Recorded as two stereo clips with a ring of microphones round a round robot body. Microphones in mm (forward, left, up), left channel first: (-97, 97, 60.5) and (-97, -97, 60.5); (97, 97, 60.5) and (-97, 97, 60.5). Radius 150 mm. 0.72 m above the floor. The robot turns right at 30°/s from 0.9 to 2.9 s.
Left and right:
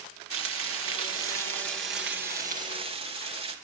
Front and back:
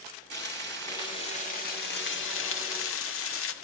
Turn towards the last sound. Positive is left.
turn(degrees=-20)